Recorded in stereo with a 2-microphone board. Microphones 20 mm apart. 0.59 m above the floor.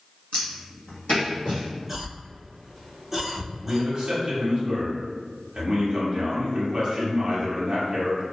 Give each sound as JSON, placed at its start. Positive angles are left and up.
{"t": 0.3, "sound": "footsteps", "side_deg": 65, "distance_m": 1.3}
{"t": 1.9, "sound": "a cough", "side_deg": 0, "distance_m": 1.4}
{"t": 3.6, "sound": "a man speaking", "side_deg": -45, "distance_m": 0.8}